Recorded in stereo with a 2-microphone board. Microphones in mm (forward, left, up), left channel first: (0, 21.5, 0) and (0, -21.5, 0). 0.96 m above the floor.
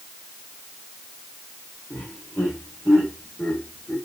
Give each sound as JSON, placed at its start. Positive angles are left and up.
{"t": 1.9, "sound": "laughter", "side_deg": 45, "distance_m": 4.0}